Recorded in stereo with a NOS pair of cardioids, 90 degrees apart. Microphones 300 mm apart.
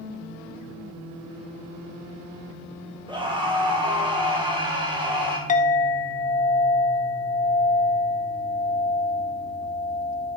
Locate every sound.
3.1 s a scream: 15° right, 1.9 m
5.5 s a clink: 25° left, 0.9 m